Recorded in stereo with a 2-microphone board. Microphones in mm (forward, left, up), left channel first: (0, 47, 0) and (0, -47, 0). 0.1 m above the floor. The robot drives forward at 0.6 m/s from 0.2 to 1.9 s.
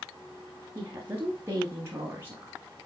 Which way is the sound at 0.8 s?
25° right (ahead or behind).